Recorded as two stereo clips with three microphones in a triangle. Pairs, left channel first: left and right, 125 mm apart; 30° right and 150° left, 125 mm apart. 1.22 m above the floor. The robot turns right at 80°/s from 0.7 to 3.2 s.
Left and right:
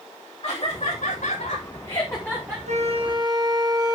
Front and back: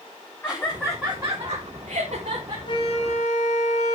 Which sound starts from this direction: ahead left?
Laughter, at 0.4 s.